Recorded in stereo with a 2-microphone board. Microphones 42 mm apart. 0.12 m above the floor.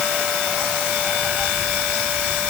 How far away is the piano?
I don't hear a piano.